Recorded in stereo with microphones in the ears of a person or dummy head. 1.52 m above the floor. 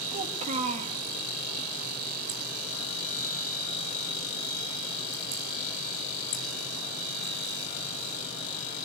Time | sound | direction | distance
0.1 | a child speaking | 35° right (ahead or behind) | 1.6 m